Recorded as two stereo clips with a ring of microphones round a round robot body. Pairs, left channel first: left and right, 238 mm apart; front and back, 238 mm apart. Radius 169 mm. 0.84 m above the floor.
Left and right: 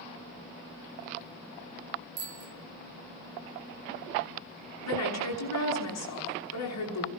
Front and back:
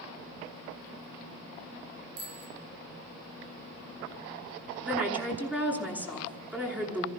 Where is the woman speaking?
95° left, 9.5 m.